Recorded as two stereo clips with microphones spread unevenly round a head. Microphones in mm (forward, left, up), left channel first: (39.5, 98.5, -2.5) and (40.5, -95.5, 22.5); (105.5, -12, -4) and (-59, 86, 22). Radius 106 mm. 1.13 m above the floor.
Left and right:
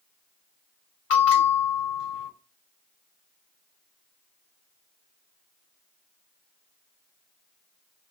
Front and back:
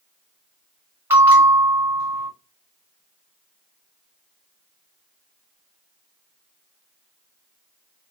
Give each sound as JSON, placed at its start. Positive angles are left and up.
{"t": 1.1, "sound": "a bell", "azimuth_deg": 80, "distance_m": 1.3}